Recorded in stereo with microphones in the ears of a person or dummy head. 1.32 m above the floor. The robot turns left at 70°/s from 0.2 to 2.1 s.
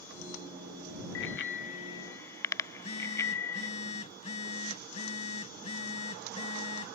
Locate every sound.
1.1 s a bicycle bell: 85° left; by 3.7 s 20° left (ahead or behind)
2.7 s a phone buzzing: 35° left (ahead or behind)